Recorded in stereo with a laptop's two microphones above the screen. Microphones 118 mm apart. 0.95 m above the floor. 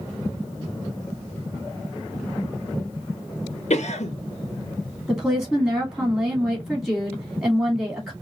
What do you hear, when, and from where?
3.7 s a cough: 70° left (ahead or behind), 0.6 m
5.1 s a woman speaking: centre (ahead or behind), 2 m